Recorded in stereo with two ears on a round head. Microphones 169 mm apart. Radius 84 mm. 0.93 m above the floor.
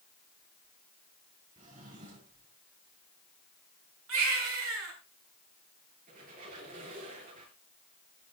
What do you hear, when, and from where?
1.6 s a drawer: 45° right (ahead or behind), 5 m
4.1 s a baby crying: 80° right, 6.5 m
6.1 s a squeak: 45° right (ahead or behind), 6 m